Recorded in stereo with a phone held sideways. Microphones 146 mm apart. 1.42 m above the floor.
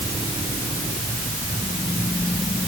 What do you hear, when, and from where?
Only background noise.